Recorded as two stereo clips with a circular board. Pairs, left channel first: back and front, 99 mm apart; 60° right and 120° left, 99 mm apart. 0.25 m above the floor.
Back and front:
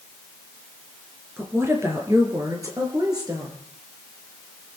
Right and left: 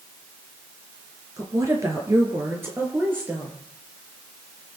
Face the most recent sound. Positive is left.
turn(degrees=45)